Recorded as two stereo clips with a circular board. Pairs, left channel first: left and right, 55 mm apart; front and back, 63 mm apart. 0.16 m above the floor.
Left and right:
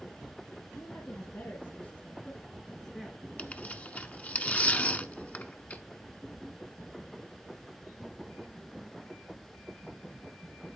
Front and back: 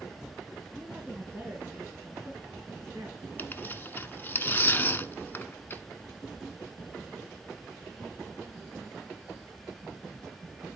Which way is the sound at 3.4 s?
40° left.